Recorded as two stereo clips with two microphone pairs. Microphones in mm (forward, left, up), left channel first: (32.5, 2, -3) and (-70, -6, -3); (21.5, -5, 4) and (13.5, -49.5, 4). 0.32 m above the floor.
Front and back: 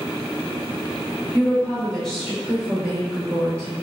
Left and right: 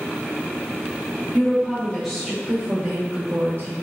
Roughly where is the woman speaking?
Ahead left.